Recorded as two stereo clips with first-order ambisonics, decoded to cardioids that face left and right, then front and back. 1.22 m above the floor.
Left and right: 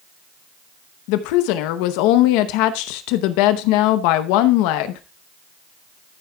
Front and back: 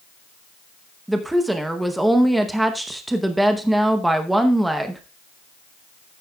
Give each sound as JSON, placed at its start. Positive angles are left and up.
{"t": 1.1, "sound": "a woman speaking", "azimuth_deg": 95, "distance_m": 0.7}